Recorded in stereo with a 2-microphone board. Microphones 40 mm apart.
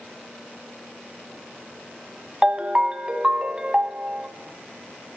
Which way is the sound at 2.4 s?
20° right (ahead or behind).